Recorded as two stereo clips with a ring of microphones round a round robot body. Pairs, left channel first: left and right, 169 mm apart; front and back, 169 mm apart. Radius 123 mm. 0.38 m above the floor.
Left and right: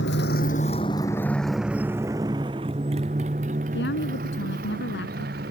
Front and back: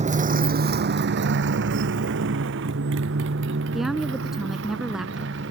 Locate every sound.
0.0 s a motorcycle: 135° left; by 5.5 s 140° right
3.7 s a woman speaking: 90° left